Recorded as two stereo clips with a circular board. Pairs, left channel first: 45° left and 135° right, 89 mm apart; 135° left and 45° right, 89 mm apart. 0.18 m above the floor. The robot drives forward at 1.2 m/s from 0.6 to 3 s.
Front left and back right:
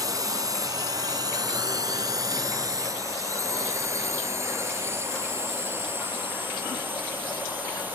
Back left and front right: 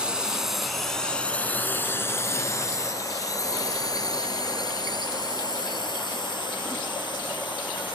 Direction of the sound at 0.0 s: 120° right.